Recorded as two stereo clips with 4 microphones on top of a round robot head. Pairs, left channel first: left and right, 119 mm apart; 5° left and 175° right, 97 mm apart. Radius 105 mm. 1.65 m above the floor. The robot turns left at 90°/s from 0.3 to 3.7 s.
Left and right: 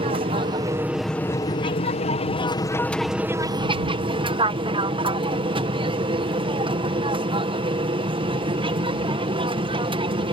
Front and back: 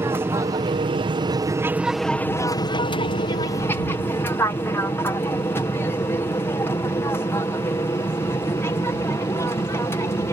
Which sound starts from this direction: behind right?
An aircraft, at 0.0 s.